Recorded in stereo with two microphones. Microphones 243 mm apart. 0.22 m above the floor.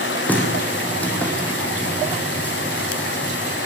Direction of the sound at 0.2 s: 5° left (ahead or behind).